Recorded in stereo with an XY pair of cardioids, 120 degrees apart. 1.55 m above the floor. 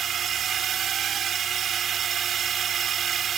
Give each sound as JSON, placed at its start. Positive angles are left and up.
{"t": 0.0, "sound": "a drone", "azimuth_deg": -50}